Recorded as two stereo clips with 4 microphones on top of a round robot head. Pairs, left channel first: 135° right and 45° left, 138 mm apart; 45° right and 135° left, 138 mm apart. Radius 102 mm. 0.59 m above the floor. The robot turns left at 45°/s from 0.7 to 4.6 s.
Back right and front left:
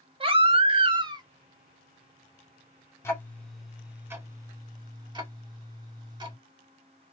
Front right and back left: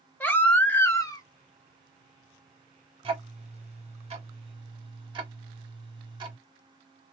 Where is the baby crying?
25° left, 0.9 m; by 1.2 s straight ahead, 0.9 m.